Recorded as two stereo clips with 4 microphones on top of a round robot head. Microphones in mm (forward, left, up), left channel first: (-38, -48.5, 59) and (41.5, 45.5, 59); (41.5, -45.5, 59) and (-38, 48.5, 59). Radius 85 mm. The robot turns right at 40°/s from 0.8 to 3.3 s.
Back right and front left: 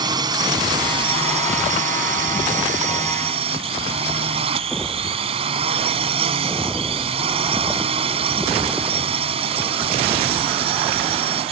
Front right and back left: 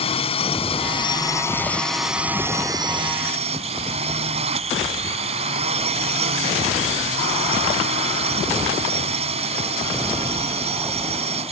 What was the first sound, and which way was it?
A drone, 5° right.